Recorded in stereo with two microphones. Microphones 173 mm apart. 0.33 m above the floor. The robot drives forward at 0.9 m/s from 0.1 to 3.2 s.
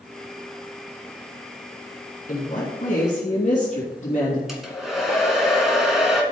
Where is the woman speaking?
55° left (ahead or behind), 2.5 m; by 4.4 s 45° left (ahead or behind), 3 m.